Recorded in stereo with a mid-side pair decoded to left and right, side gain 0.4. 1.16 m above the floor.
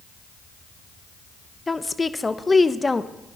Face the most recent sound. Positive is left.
turn(degrees=20)